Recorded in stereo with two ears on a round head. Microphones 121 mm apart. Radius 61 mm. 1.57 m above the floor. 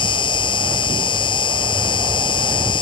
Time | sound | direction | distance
0.0 | an insect | 40° left (ahead or behind) | ?